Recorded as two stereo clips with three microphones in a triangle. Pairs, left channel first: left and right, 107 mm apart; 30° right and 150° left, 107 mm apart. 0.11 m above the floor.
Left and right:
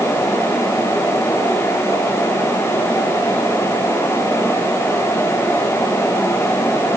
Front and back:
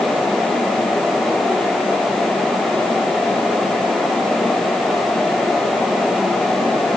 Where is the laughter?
I don't hear laughter.